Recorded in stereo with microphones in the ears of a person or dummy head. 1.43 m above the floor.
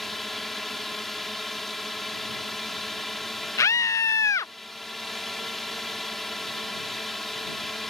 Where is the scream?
15° left (ahead or behind).